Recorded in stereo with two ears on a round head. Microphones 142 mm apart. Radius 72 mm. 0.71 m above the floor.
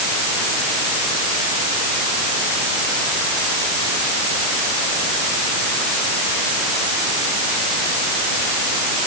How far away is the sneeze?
No sneeze in this recording.